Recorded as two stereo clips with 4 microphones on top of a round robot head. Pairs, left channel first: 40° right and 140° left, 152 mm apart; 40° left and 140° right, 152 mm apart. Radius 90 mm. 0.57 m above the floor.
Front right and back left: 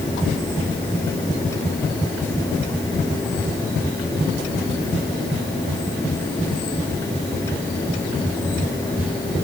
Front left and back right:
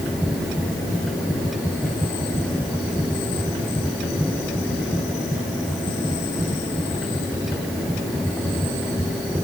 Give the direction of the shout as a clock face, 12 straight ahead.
No shout in this recording.